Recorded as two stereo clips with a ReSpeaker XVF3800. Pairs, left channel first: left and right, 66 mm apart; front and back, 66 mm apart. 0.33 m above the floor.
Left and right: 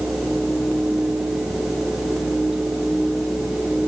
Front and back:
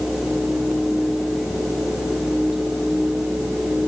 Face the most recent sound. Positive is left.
No sound to turn to.